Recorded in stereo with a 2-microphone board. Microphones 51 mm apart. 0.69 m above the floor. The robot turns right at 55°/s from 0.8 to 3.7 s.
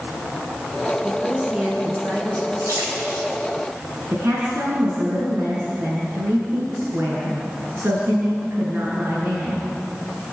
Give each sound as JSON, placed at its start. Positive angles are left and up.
{"t": 1.0, "sound": "a woman speaking", "azimuth_deg": 170, "distance_m": 10.0}
{"t": 2.6, "sound": "a splash", "side_deg": -80, "distance_m": 6.0}
{"t": 4.1, "sound": "a woman speaking", "side_deg": -50, "distance_m": 6.5}